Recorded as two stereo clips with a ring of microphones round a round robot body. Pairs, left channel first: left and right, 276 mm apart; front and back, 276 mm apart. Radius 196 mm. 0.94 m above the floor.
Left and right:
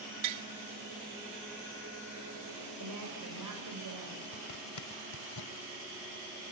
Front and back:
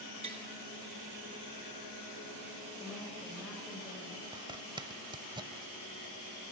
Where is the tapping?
105° right, 1.0 m.